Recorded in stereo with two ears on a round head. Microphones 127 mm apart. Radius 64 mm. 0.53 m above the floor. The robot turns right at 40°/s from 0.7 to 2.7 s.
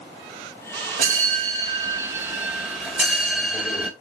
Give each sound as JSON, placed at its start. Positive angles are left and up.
{"t": 1.0, "sound": "a bell", "azimuth_deg": -70, "distance_m": 2.5}